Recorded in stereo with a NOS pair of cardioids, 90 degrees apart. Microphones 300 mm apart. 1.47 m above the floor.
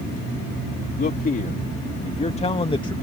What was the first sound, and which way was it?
A man speaking, 30° left.